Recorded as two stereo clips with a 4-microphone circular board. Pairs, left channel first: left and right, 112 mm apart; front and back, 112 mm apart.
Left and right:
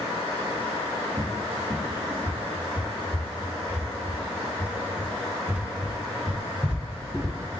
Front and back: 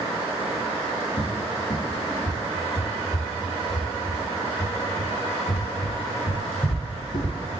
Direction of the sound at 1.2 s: 15° right.